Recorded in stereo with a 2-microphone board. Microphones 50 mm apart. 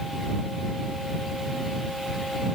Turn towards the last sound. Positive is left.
No sound to turn to.